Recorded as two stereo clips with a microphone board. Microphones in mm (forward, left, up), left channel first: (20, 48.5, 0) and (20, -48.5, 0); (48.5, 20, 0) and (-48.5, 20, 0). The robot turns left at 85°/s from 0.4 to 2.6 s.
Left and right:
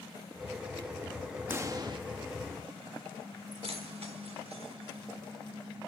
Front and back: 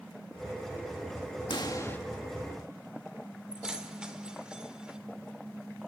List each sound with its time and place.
1.5 s a pop: 25° right, 1.4 m; by 2.0 s 65° right, 1.4 m
3.5 s keys jangling: 95° right, 1.7 m